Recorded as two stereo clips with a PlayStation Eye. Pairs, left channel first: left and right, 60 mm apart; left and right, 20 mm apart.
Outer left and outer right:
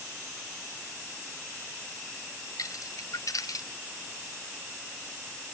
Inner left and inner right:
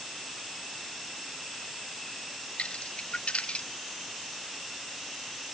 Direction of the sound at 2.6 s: 65° left (ahead or behind).